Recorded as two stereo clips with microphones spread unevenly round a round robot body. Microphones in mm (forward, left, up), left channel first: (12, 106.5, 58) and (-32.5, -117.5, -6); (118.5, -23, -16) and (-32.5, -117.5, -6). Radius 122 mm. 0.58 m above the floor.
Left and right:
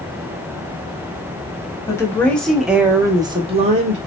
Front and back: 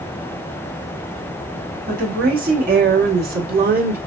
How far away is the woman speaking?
About 1.3 m.